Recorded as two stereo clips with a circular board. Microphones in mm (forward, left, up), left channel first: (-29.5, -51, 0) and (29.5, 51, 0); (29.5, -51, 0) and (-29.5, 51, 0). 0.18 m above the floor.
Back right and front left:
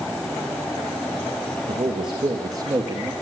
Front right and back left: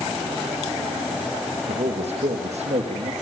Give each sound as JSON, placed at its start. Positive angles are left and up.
{"t": 1.7, "sound": "a man speaking", "azimuth_deg": 100, "distance_m": 4.0}